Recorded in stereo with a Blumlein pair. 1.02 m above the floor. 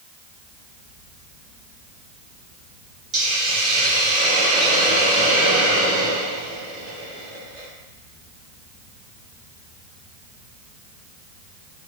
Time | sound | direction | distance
3.1 | a hiss | 25° right | 1.7 m